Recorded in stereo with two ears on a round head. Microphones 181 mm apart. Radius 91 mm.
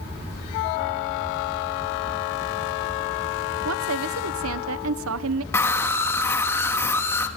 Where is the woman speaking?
70° right (ahead or behind), 0.8 m.